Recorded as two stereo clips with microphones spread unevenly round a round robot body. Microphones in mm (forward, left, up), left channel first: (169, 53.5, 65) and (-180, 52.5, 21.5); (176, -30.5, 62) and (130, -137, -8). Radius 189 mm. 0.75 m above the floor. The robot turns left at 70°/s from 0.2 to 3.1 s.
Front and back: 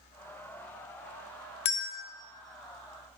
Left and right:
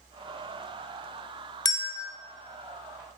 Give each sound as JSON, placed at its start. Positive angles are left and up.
{"t": 1.6, "sound": "a bell", "azimuth_deg": 10, "distance_m": 0.5}